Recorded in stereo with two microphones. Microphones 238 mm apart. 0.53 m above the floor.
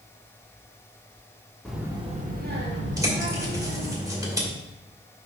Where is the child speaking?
5° left (ahead or behind), 0.9 m; by 4.0 s 65° right (ahead or behind), 2.5 m.